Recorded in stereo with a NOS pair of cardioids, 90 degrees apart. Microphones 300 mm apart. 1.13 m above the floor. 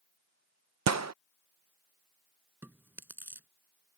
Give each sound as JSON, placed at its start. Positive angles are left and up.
{"t": 0.9, "sound": "a gunshot", "azimuth_deg": -60}
{"t": 2.6, "sound": "chewing", "azimuth_deg": -5}